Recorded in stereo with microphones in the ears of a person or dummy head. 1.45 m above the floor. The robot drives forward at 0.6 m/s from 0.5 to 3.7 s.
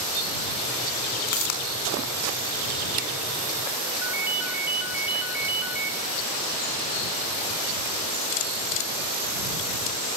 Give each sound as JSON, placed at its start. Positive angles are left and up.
{"t": 1.3, "sound": "a pop", "side_deg": 50, "distance_m": 4.0}
{"t": 4.0, "sound": "a ringtone", "side_deg": -5, "distance_m": 2.0}